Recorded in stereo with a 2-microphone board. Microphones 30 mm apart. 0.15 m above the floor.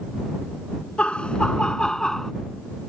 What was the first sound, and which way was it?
Laughter, 45° left (ahead or behind).